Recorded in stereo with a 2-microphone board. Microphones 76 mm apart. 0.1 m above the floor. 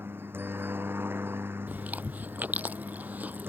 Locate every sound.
0.0 s a helicopter: 30° right (ahead or behind)
1.7 s chewing: 20° right (ahead or behind)